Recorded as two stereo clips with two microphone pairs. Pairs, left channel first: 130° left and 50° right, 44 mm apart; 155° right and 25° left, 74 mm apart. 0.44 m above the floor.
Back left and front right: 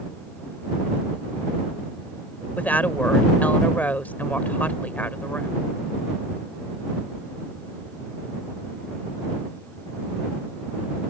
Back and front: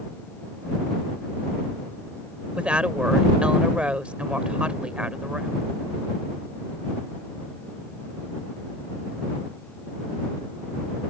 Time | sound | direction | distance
2.6 | a woman speaking | 95° left | ?